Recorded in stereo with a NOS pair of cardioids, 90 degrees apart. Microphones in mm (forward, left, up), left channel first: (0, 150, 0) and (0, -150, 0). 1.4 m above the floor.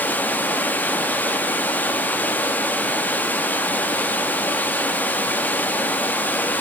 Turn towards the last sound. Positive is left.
turn(degrees=5)